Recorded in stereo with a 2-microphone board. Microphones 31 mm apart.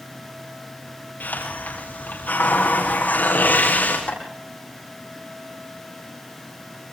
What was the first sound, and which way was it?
A hiss, 80° left.